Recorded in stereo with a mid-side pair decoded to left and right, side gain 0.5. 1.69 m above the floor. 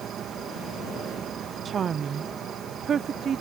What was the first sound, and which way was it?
An insect, 55° right.